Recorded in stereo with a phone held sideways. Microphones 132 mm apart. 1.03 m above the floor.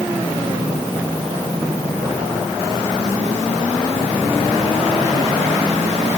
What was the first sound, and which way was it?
Only background noise.